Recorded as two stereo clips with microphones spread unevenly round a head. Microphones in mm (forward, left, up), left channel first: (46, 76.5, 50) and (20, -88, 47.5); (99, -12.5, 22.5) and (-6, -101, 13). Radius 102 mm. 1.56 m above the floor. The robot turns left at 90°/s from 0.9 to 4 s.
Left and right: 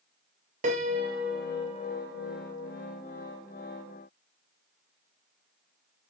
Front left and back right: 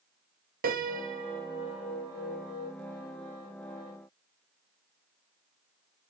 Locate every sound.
0.6 s a piano: 150° right, 0.7 m; by 2.7 s 50° left, 0.7 m